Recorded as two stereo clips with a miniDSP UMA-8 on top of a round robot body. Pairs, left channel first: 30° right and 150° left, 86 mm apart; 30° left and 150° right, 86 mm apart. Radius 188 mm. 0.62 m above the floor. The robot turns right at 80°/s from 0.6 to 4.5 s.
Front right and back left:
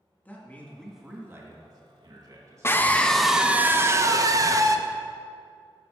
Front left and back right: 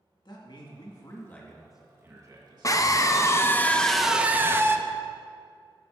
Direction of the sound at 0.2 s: 35° left.